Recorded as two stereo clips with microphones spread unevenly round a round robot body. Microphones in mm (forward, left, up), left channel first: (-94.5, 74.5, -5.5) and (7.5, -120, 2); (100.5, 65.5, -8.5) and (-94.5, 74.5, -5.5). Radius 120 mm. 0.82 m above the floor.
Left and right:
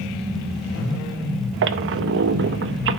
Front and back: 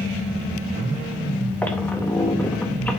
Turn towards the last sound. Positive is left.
turn(degrees=-85)